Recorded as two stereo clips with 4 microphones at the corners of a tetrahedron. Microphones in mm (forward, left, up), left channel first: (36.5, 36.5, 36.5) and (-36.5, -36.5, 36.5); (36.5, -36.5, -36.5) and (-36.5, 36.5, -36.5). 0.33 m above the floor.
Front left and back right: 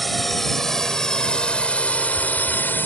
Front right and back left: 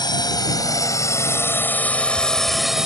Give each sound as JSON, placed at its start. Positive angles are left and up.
{"t": 0.0, "sound": "a drone", "azimuth_deg": -45}